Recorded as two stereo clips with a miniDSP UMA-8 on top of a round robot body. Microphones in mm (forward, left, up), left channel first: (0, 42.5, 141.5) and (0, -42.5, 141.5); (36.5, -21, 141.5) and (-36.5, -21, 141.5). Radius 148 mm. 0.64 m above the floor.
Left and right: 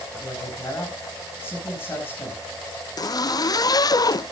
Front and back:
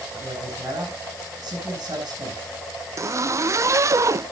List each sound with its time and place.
0.1 s a man speaking: 155° left, 8.5 m
3.0 s a zipper: 135° left, 0.5 m